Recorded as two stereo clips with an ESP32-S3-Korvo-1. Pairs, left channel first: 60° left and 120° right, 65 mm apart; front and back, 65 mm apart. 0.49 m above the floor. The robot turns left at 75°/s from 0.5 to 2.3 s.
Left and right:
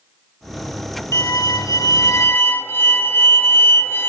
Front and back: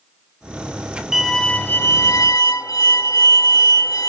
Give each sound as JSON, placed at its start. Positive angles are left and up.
{"t": 1.1, "sound": "a violin", "azimuth_deg": 100, "distance_m": 1.3}